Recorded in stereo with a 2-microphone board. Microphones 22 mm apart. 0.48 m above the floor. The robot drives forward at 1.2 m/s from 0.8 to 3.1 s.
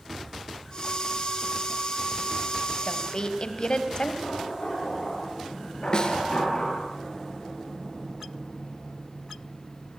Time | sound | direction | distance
2.9 | a woman speaking | 40° left (ahead or behind) | 3 m
4.2 | knocking | 50° left (ahead or behind) | 9.5 m
5.9 | a snare drum | 40° left (ahead or behind) | 3 m